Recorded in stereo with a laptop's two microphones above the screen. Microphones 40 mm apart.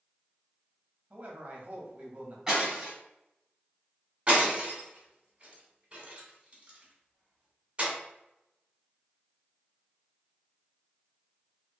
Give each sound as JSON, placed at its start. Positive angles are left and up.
{"t": 1.1, "sound": "a man speaking", "side_deg": -40, "distance_m": 0.8}
{"t": 2.5, "sound": "breaking glass", "side_deg": -15, "distance_m": 1.6}
{"t": 4.3, "sound": "breaking glass", "side_deg": -30, "distance_m": 1.4}